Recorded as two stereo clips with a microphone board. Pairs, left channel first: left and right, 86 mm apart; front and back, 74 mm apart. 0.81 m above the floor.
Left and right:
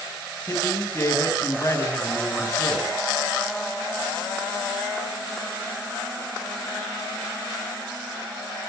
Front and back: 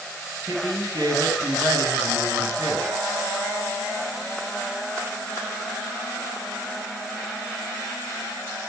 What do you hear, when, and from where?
0.5 s a woman speaking: 150° left, 6.5 m